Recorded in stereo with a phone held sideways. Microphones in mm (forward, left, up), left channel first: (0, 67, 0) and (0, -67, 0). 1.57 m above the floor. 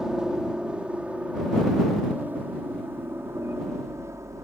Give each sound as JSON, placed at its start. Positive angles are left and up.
{"t": 0.0, "sound": "a helicopter", "side_deg": -5}